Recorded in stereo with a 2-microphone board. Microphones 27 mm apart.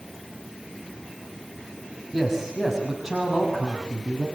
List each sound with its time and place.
2.1 s a man speaking: centre (ahead or behind), 5 m; by 4.3 s 15° right (ahead or behind), 6.5 m